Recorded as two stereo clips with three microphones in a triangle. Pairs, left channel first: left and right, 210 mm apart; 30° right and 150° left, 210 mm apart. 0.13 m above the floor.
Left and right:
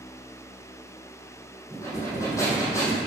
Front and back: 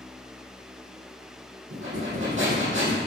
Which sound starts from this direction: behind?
Breathing, at 1.7 s.